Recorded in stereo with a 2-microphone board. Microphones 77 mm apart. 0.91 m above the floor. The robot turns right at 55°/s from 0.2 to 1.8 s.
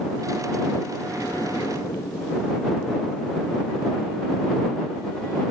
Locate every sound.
1.0 s an explosion: 15° left; by 3.3 s 60° left